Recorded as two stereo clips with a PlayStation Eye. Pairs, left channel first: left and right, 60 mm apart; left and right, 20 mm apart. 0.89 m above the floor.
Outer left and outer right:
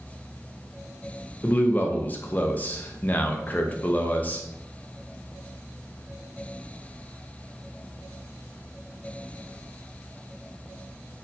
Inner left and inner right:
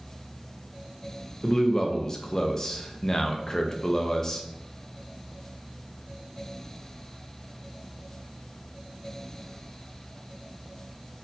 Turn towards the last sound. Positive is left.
turn(degrees=25)  # may be behind; listen again after turning